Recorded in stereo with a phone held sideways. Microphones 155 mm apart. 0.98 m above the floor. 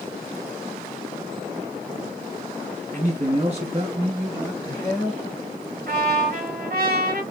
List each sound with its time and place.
2.9 s a man speaking: 50° right (ahead or behind), 1.5 m; by 5.2 s 15° left (ahead or behind), 1.2 m
5.9 s a trumpet: 70° right (ahead or behind), 2.0 m